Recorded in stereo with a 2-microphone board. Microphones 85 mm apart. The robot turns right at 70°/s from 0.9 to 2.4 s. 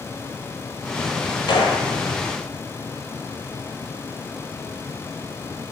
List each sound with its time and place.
1.5 s a gunshot: 65° left (ahead or behind), 0.7 m; by 1.9 s 80° left, 0.7 m